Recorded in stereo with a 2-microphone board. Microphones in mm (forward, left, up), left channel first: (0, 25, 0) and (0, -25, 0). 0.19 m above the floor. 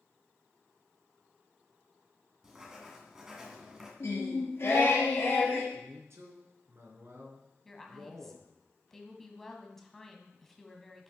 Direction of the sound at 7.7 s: 5° left (ahead or behind).